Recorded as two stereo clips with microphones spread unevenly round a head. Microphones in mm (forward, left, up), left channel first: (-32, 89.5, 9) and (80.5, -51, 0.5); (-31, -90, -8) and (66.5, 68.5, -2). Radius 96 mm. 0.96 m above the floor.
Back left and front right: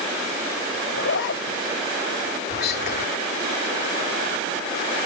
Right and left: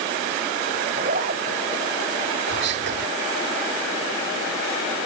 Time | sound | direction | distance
0.9 | a zipper | 105° left | ?
2.5 | whispering | 95° left | ?